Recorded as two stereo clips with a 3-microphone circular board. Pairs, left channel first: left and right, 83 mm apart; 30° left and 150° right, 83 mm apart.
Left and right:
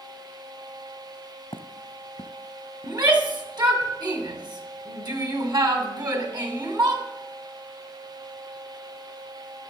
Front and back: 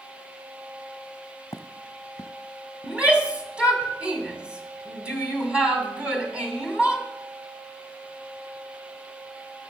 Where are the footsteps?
75° left, 1.0 m.